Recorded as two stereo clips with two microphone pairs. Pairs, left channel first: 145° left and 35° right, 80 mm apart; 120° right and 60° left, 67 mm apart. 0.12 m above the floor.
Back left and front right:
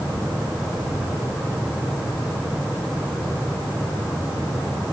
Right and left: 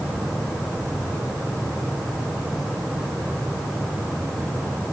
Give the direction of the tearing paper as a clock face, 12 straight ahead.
No tearing paper in this recording.